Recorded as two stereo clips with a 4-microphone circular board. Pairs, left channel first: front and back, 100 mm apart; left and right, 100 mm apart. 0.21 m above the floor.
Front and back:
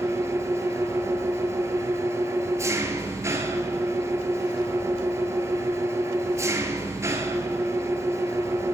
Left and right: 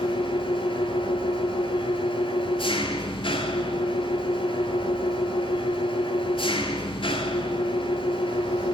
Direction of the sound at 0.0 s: 120° left.